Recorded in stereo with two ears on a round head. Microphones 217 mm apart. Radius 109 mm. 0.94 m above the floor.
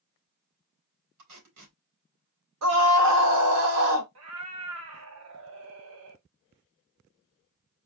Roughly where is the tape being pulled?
Right.